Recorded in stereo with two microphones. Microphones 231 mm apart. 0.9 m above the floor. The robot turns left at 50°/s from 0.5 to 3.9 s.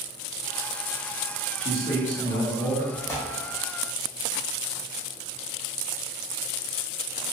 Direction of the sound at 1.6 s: 140° left.